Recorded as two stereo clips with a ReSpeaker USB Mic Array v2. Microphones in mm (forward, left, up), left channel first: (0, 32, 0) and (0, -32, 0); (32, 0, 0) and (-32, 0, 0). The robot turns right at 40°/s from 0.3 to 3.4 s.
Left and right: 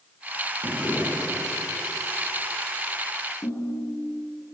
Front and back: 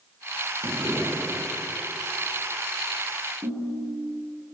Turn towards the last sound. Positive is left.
turn(degrees=135)